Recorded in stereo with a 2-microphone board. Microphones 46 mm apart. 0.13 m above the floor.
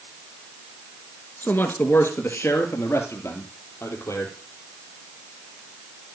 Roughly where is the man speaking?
Left.